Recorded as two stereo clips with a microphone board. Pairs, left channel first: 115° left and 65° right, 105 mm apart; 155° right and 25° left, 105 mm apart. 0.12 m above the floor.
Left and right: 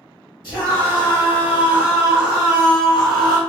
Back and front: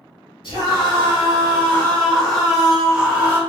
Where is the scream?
135° right, 1.7 m; by 3.4 s 40° left, 1.2 m.